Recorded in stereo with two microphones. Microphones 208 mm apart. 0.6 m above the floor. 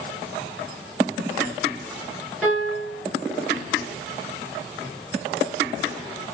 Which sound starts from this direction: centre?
A piano, at 2.4 s.